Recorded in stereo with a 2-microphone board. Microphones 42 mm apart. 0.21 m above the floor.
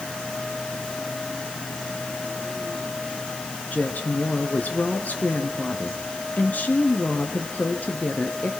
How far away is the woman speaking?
About 2.5 m.